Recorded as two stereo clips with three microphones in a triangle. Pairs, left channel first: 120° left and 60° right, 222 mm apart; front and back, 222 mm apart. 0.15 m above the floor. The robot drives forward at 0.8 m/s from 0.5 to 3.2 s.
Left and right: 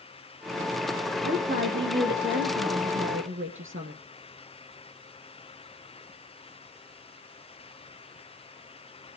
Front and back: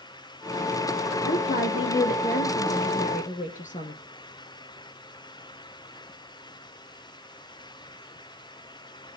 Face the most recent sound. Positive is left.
turn(degrees=-50)